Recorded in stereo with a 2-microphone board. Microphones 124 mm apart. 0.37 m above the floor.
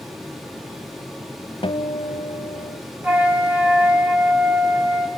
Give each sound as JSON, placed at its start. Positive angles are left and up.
{"t": 1.6, "sound": "a guitar", "side_deg": 50, "distance_m": 0.9}
{"t": 3.0, "sound": "a flute", "side_deg": -10, "distance_m": 1.8}